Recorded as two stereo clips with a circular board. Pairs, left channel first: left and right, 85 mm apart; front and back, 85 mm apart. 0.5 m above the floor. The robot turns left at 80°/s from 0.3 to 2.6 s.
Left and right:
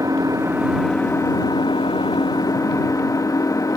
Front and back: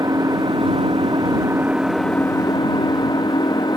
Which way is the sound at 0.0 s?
135° right.